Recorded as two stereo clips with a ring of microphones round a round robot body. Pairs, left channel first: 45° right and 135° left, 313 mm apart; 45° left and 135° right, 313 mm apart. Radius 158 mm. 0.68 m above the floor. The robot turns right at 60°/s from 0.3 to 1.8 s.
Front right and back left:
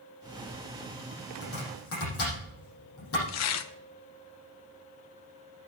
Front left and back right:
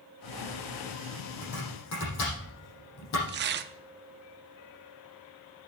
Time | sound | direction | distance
1.4 | chopping | 20° right | 7.5 m
3.3 | tearing paper | 80° right | 0.7 m